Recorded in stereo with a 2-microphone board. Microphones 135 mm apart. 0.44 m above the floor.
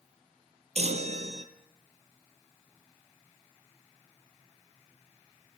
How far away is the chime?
About 1.8 m.